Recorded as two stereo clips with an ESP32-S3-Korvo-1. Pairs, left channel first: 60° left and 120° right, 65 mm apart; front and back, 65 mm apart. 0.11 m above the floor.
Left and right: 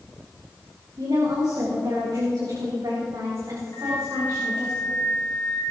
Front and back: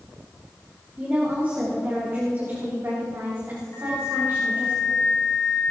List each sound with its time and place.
1.0 s a woman speaking: 115° right, 5.5 m; by 4.7 s 140° right, 8 m
3.7 s a flute: 45° left, 5 m